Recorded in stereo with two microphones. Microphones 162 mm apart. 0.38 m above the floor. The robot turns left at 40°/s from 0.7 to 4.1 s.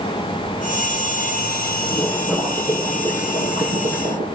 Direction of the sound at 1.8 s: 10° left.